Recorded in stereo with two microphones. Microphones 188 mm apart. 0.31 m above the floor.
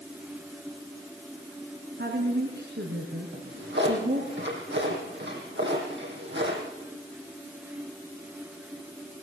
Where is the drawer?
70° right (ahead or behind), 6.5 m.